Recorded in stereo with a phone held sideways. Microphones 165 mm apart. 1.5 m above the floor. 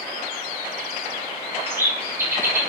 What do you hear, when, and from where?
1.7 s a bird: 15° right (ahead or behind), 1.6 m